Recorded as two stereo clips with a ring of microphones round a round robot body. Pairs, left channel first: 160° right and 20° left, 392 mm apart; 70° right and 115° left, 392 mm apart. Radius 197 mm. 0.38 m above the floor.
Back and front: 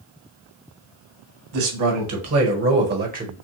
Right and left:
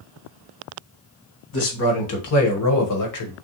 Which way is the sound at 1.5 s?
15° right.